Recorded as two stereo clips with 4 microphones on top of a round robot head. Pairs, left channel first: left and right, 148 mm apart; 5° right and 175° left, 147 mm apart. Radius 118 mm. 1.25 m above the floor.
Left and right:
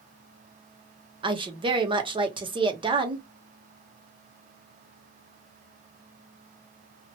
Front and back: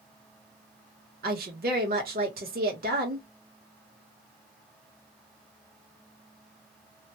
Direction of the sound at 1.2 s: 150° right.